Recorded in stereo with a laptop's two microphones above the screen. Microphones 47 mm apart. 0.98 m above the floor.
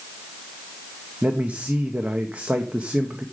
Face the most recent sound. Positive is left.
turn(degrees=-30)  # may be behind; listen again after turning